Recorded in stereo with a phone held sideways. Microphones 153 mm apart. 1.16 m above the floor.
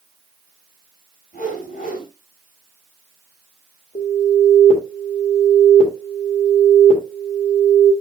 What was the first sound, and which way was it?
A whoosh, 65° left (ahead or behind).